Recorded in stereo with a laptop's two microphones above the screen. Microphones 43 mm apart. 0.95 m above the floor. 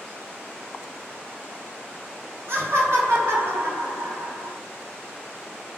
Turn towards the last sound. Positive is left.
turn(degrees=-60)  # may be behind; listen again after turning